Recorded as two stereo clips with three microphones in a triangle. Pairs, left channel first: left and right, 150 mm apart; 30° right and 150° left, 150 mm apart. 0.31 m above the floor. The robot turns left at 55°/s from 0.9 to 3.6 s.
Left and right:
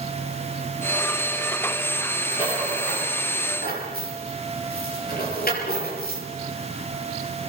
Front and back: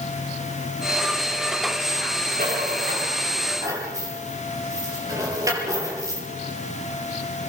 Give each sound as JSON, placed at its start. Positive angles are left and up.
{"t": 2.3, "sound": "a rattle", "azimuth_deg": 150, "distance_m": 6.0}